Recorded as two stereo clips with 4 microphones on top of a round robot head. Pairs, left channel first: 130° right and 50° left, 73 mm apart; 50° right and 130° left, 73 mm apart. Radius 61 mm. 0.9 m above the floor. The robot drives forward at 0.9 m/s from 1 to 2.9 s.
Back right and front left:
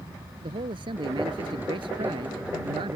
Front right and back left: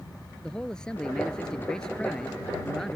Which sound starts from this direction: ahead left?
A man speaking, at 0.4 s.